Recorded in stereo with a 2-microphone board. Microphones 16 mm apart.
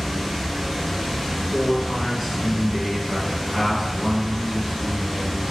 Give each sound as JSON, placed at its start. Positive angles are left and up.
{"t": 0.0, "sound": "running water", "side_deg": 10, "distance_m": 1.5}
{"t": 1.5, "sound": "a man speaking", "side_deg": -25, "distance_m": 1.2}